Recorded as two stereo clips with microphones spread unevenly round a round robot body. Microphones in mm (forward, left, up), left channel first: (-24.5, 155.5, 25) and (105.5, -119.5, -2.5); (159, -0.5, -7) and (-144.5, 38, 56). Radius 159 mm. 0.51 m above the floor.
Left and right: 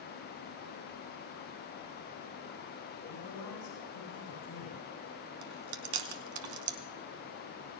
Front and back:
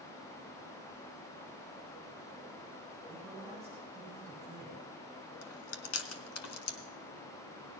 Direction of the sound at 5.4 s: 55° right.